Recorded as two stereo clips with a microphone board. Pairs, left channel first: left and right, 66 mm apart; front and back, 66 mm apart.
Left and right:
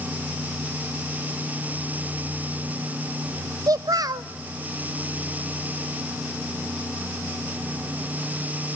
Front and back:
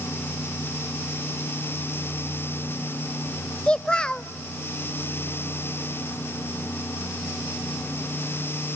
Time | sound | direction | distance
3.7 | a child speaking | 75° right | 0.5 m